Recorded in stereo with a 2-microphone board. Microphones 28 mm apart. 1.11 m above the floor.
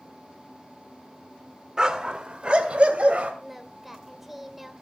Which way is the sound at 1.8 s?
30° right (ahead or behind).